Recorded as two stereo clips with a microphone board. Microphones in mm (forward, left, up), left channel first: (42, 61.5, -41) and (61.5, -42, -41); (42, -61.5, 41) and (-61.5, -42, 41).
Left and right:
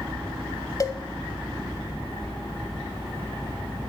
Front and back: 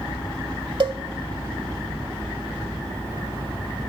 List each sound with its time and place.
0.8 s a cowbell: 145° left, 0.8 m